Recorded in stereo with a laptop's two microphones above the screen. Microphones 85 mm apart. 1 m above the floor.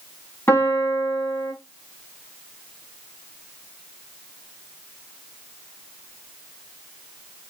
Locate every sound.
0.5 s a piano: 25° left (ahead or behind), 1.6 m